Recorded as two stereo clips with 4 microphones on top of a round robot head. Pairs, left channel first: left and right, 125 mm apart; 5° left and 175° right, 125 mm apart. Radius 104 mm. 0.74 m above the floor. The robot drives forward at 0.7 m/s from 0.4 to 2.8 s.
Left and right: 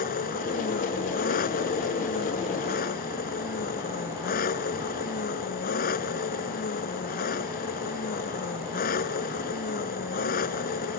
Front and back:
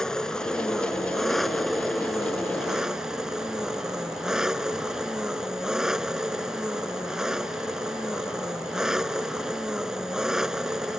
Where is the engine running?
90° left; by 11.0 s 95° left.